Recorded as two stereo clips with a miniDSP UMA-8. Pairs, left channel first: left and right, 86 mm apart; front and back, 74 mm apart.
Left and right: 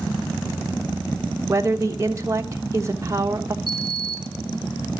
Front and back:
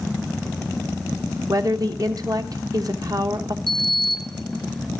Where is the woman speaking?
145° right, 1.2 m.